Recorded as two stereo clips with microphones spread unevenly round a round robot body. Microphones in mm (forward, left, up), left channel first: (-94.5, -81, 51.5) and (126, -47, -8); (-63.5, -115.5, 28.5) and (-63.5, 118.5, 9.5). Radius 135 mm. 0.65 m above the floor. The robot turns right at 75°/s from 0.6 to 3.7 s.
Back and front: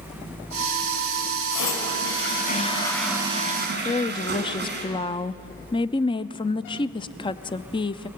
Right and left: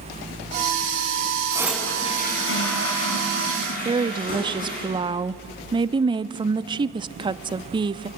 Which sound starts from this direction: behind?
A toilet flushing, at 1.5 s.